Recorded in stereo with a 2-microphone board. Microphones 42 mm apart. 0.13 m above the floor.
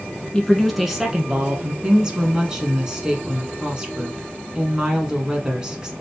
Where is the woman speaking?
20° right (ahead or behind), 1.4 m.